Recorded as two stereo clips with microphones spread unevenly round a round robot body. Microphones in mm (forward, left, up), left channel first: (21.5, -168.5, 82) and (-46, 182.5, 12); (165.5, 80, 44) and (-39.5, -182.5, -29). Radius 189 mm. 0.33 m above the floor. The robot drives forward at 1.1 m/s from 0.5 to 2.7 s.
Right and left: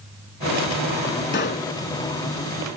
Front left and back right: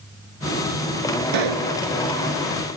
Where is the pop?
145° right.